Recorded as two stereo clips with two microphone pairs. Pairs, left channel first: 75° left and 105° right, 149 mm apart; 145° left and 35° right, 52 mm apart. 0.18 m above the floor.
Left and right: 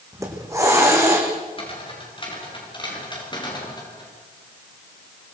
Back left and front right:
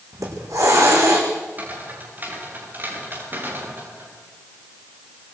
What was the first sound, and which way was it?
A hiss, 35° right.